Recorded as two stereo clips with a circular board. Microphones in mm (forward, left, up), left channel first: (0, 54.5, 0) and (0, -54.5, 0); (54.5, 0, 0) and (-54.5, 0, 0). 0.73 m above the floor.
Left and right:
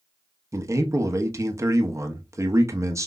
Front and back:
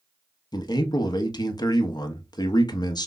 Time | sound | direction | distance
0.5 | a man speaking | 35° right | 0.7 m